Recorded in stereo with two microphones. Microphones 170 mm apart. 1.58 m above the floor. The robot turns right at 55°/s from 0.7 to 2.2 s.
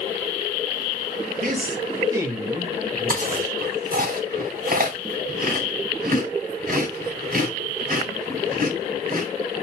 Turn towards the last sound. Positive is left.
turn(degrees=-60)  # may be behind; listen again after turning